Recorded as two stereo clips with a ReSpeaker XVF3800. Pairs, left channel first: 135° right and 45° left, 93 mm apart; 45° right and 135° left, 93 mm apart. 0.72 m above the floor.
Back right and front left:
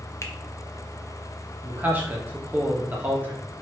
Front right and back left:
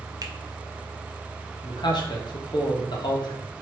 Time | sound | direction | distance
0.2 | a finger snap | 175° left | 0.6 m
1.6 | a man speaking | 20° right | 1.2 m